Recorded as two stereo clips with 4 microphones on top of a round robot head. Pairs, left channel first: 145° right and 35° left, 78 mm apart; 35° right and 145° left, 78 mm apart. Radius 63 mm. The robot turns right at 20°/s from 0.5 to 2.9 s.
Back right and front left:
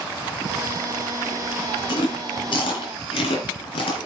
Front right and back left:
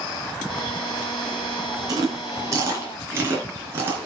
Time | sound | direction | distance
1.9 | chewing | 170° right | 3.5 m